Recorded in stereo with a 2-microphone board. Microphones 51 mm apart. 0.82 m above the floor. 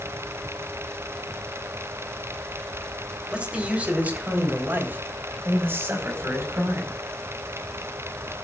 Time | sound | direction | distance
3.3 | a man speaking | 20° right (ahead or behind) | 3.5 m